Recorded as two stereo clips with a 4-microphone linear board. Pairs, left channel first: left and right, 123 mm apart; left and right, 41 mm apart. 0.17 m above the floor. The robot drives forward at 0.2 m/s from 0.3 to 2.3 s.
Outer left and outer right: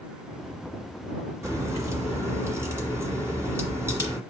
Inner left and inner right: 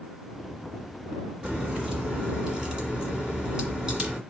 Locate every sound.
1.4 s a crack: 25° right (ahead or behind), 1.9 m; by 4.2 s 20° right (ahead or behind), 2 m